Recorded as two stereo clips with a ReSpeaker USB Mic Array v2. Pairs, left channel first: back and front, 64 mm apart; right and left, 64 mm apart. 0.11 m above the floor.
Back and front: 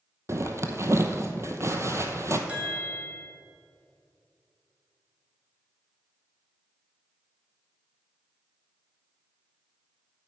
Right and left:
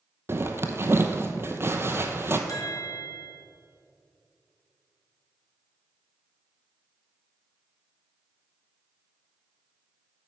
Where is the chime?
70° right, 1.2 m.